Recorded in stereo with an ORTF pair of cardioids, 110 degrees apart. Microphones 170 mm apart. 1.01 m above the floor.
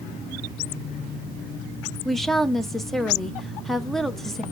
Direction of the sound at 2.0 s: Straight ahead.